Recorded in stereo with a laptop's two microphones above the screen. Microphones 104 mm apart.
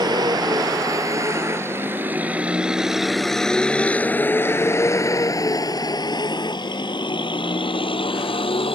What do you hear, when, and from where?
0.0 s a vehicle: 45° right (ahead or behind); by 8.8 s 60° left (ahead or behind)